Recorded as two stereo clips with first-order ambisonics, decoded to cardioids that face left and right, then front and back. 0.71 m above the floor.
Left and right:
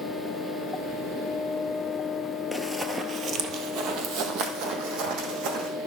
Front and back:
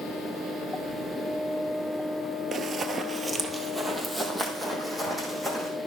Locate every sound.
2.5 s running footsteps: 175° left, 0.7 m; by 5.7 s 80° right, 2 m